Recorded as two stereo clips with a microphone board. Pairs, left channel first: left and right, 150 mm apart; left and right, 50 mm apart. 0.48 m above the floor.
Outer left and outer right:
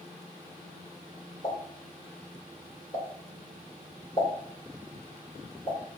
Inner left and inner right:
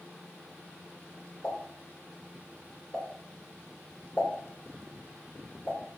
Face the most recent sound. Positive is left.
turn(degrees=30)  # may be behind; listen again after turning